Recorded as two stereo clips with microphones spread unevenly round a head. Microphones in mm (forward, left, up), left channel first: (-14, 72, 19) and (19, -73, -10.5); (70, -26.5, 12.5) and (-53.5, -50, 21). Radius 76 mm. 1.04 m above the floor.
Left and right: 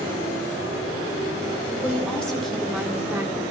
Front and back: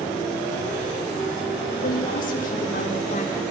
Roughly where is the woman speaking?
Ahead left.